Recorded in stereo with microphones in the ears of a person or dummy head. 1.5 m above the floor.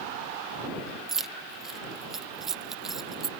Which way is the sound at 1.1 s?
Centre (ahead or behind).